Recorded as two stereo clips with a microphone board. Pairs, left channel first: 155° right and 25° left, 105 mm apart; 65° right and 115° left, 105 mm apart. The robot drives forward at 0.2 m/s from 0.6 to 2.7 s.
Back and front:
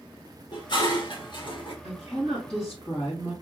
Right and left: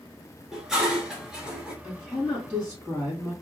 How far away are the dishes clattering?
About 1.3 m.